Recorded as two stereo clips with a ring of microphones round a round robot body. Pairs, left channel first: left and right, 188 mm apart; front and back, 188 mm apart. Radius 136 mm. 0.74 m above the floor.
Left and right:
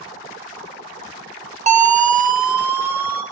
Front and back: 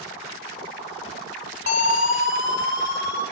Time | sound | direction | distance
1.7 | a siren | 45° right | 3 m